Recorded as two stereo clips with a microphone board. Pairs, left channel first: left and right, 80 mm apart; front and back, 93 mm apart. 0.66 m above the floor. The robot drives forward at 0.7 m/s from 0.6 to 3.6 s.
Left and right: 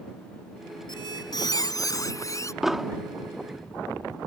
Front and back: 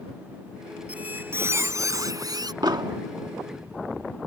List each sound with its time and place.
0.9 s a squeak: 105° left; by 2.5 s 135° left
2.6 s an explosion: 175° right